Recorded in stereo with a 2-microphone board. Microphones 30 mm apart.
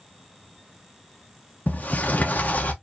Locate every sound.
1.7 s a sliding door: 60° left (ahead or behind), 1.1 m